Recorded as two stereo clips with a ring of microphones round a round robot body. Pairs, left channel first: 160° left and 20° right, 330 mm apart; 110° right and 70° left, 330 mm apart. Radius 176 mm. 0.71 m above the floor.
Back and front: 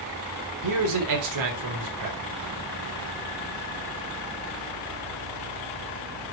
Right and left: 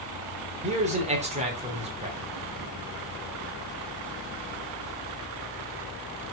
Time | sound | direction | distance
0.6 | a man speaking | straight ahead | 3 m